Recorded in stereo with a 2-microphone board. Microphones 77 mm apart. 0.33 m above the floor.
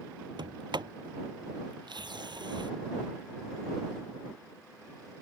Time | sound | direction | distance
0.4 | a sliding door | 80° right | ?